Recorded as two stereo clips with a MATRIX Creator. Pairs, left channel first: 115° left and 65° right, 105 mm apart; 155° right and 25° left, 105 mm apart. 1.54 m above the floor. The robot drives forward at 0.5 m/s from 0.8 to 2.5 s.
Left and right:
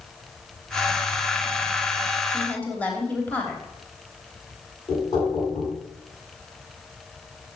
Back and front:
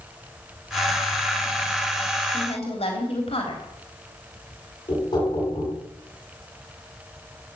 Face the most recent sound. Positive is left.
turn(degrees=160)